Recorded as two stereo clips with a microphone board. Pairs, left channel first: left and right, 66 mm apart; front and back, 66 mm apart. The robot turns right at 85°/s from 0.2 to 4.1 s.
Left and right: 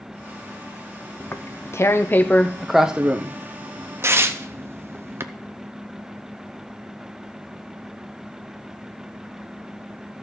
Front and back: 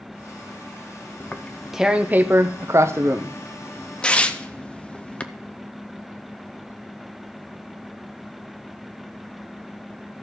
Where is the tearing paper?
50° left, 0.6 m; by 5.2 s 60° right, 0.6 m.